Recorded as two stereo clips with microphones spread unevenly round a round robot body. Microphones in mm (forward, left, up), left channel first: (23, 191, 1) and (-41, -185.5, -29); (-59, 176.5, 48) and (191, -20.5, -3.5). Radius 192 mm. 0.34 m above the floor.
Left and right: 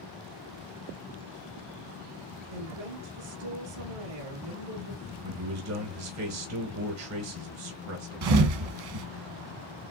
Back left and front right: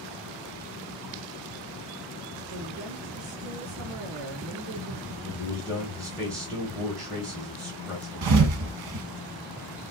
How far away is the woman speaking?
About 4 m.